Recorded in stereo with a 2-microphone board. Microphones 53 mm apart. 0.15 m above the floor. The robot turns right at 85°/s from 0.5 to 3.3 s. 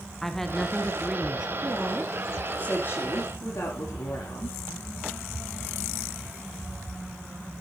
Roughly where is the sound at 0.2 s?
Centre.